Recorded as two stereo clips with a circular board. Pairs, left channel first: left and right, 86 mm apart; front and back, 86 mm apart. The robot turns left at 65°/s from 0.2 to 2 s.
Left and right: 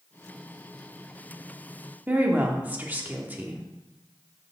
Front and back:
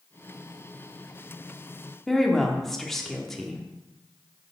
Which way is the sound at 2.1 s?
80° right.